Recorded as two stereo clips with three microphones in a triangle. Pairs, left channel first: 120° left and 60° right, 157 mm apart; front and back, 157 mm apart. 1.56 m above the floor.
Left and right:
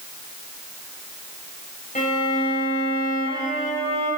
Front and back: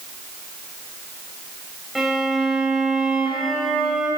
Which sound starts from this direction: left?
A violin, at 1.9 s.